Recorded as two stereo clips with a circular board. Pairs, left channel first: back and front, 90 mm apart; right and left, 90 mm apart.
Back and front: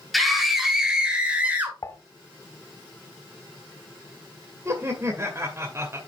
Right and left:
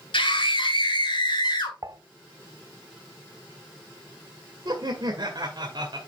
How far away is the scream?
About 2.5 m.